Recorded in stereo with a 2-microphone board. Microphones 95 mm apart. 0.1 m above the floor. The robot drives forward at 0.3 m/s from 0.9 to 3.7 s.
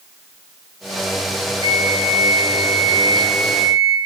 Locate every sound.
1.6 s a flute: 65° left (ahead or behind), 4.5 m